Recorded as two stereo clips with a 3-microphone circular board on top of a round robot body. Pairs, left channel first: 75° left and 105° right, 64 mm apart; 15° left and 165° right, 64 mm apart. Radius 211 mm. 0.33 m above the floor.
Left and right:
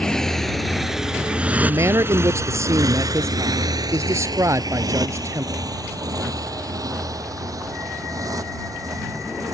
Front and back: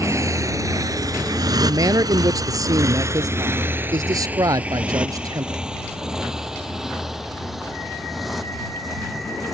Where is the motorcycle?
155° left; by 9.5 s 75° right.